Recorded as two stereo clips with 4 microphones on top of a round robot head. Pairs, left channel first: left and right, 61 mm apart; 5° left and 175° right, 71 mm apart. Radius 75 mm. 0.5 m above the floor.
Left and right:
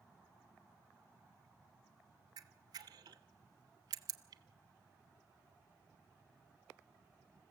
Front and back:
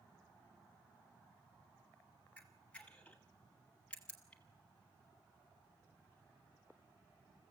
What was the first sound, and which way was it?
A camera shutter, 75° right.